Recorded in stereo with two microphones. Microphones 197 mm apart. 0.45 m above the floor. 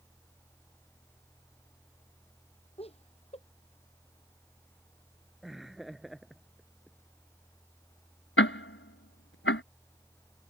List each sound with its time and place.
2.8 s laughter: 30° left (ahead or behind)
5.4 s laughter: centre (ahead or behind)
8.4 s ticking: 85° left